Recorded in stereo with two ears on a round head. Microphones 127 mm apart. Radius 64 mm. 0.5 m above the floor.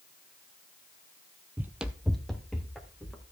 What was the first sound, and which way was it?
Running footsteps, 15° right (ahead or behind).